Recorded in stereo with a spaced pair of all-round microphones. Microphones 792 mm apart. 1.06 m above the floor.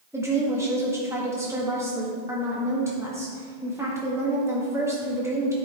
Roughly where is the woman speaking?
Centre.